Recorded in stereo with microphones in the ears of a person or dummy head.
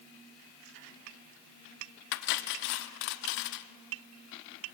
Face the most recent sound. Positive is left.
turn(degrees=60)  # may be behind; listen again after turning